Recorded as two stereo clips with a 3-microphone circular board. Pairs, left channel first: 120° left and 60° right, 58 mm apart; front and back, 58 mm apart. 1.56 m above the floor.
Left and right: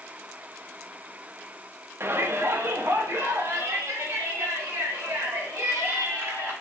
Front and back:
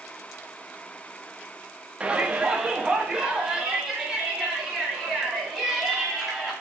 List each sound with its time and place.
2.0 s a shout: 105° right, 0.7 m; by 6.5 s 95° right, 3.5 m